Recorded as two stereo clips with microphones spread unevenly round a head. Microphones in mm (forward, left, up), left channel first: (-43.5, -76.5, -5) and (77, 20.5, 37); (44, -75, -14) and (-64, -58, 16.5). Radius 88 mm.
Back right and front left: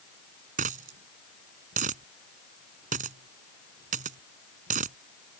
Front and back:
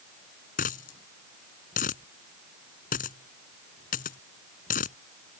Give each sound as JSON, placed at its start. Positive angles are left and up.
{"t": 0.6, "sound": "a dropped coin", "azimuth_deg": 15}